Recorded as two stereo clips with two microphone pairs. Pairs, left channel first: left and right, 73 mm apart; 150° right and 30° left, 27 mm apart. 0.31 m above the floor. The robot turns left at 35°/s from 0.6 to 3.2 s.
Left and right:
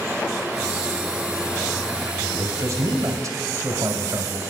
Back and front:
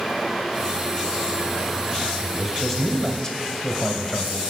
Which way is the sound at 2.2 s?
55° right.